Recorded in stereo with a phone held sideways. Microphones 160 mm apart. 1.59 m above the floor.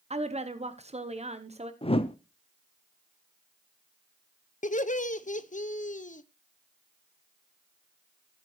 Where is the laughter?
50° left (ahead or behind), 0.7 m.